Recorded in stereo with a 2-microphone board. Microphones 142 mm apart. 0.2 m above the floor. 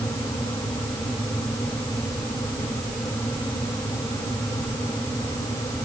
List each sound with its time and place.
Only background noise.